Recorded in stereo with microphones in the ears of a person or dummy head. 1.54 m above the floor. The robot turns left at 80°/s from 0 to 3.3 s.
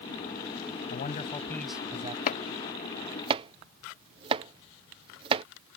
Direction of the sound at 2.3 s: 50° left (ahead or behind).